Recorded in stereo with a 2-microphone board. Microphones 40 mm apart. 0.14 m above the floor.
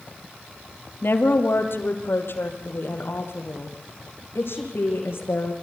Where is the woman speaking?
65° left (ahead or behind), 2.5 m; by 5.5 s 70° left (ahead or behind), 6.5 m.